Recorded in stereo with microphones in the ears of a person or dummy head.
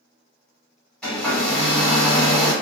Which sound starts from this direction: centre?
A hair dryer, at 1.0 s.